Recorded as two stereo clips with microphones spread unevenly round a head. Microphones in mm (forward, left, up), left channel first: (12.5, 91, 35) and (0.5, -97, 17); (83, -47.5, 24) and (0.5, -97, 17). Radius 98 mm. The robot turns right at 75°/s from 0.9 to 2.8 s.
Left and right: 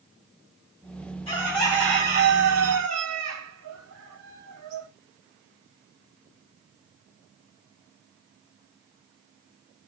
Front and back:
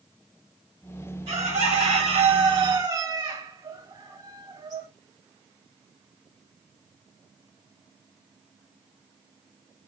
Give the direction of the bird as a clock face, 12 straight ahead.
7 o'clock.